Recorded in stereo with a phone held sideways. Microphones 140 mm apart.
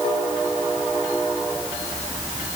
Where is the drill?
No drill in this recording.